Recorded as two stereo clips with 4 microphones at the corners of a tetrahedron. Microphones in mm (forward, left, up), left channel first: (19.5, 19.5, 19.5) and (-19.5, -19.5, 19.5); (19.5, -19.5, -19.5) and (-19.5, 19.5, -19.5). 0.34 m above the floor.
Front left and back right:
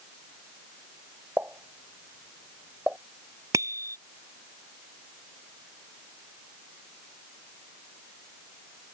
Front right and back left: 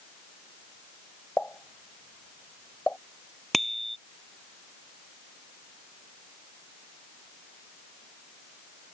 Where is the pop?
95° right.